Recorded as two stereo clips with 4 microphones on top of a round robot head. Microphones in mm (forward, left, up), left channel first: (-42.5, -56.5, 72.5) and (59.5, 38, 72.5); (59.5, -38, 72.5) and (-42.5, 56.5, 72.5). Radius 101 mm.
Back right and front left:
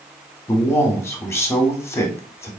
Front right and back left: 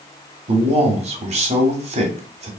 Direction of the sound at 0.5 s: 155° left.